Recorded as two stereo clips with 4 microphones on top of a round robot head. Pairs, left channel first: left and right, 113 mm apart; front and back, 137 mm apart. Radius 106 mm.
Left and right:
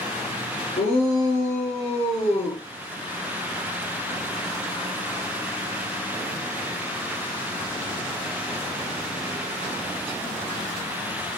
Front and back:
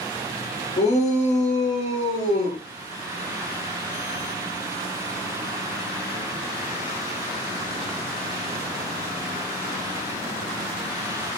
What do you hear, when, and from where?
0.8 s a shout: 35° left, 8 m; by 2.6 s 40° left, 8.5 m